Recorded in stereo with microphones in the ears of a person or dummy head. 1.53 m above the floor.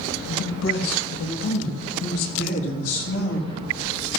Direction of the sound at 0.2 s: 65° left (ahead or behind).